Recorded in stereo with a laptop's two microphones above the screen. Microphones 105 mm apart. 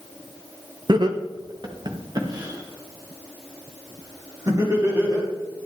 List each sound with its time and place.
0.9 s laughter: 45° right (ahead or behind), 0.9 m; by 5.3 s 30° right (ahead or behind), 4 m